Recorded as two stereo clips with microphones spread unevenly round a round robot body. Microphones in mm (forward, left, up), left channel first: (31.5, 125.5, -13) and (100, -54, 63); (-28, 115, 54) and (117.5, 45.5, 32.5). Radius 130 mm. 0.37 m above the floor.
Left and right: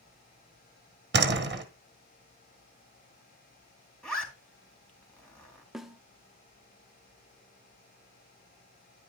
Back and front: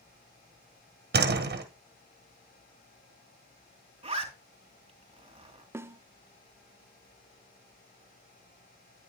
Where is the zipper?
30° left, 3.5 m.